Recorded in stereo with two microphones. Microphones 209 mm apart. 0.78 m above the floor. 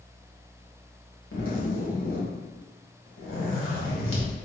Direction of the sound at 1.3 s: 80° left.